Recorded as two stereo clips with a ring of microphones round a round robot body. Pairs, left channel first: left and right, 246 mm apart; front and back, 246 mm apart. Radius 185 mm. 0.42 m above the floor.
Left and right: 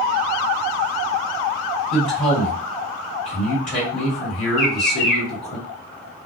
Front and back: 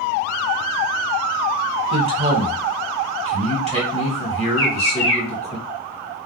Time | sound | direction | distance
1.9 | a man speaking | 115° left | 1.8 m
4.6 | a bird | 125° left | 1.8 m